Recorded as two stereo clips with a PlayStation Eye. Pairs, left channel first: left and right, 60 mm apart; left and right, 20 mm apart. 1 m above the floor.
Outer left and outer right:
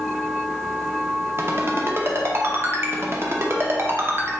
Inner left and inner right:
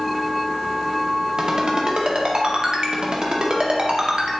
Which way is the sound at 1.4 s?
45° right (ahead or behind).